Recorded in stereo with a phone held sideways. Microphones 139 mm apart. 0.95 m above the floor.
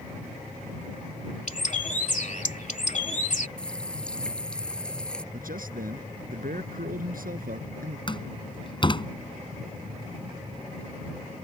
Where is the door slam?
35° left (ahead or behind).